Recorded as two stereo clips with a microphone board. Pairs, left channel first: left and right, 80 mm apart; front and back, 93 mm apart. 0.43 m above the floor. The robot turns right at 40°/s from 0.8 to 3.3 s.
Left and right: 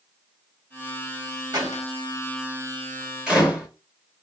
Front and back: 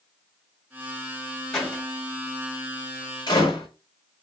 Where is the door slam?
85° right, 1.2 m; by 3.7 s 15° right, 1.2 m.